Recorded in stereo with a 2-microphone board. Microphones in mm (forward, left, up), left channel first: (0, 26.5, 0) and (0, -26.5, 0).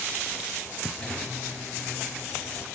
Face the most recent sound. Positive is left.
turn(degrees=20)  # may be behind; listen again after turning